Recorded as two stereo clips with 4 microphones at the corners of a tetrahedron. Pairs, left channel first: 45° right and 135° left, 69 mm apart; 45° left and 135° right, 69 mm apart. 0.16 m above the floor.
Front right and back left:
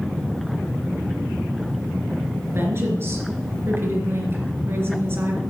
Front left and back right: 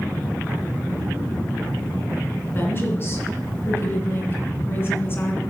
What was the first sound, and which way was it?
A woman speaking, 90° left.